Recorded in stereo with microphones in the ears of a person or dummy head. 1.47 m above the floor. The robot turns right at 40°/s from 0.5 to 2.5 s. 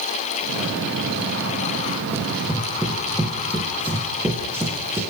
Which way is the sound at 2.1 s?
10° right (ahead or behind).